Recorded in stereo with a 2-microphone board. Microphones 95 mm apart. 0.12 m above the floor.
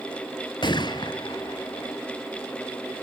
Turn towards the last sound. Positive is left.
turn(degrees=55)  # may be behind; listen again after turning